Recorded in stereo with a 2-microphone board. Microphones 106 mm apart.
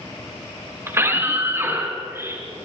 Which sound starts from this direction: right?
A scream, at 0.9 s.